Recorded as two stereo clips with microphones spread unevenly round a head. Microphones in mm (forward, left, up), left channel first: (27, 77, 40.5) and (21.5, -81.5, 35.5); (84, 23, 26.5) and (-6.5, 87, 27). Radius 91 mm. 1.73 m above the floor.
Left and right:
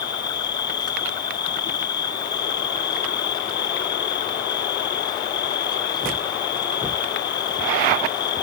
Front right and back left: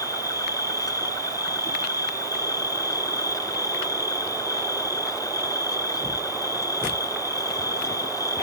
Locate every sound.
0.0 s an insect: 25° left